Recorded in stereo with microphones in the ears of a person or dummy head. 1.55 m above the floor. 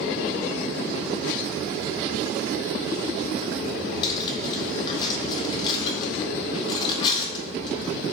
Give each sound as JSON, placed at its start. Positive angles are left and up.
{"t": 4.0, "sound": "cutlery clinking", "side_deg": 35, "distance_m": 1.3}